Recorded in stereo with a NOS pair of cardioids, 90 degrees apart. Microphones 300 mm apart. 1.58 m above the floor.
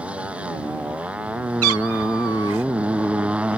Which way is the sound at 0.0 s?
5° right.